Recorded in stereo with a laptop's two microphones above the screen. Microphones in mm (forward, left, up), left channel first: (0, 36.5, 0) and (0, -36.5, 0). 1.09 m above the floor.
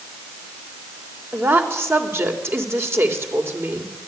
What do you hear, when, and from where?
1.3 s a woman speaking: 35° right (ahead or behind), 3.5 m